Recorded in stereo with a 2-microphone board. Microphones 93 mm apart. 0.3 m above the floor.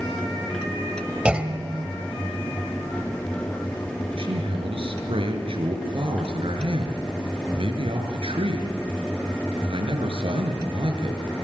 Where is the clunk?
10° right (ahead or behind), 1.8 m.